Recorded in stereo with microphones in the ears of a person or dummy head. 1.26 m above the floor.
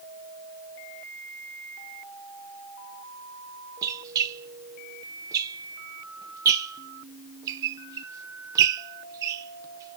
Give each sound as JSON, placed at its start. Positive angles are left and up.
{"t": 3.8, "sound": "a squeak", "side_deg": -20, "distance_m": 0.5}